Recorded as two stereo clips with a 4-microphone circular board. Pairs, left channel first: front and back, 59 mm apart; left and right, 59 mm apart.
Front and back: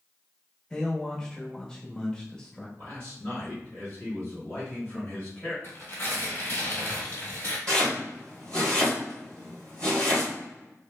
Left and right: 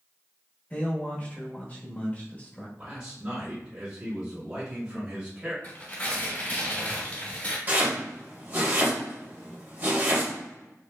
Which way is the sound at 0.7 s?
65° left.